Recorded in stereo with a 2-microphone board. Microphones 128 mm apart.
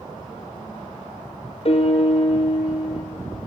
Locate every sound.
1.6 s a piano: 50° left (ahead or behind), 1.7 m